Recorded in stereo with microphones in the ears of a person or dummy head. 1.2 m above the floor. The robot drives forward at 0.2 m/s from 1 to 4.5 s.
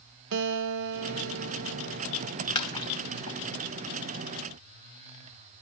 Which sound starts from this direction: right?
A guitar, at 0.3 s.